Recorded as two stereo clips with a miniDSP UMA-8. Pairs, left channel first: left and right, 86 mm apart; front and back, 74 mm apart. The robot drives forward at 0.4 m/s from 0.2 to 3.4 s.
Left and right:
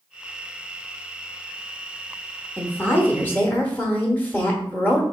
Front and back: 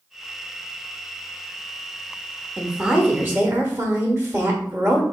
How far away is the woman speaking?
About 0.8 m.